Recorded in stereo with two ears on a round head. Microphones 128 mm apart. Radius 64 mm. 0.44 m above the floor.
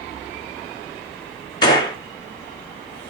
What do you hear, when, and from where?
1.6 s a gunshot: 30° left (ahead or behind), 3 m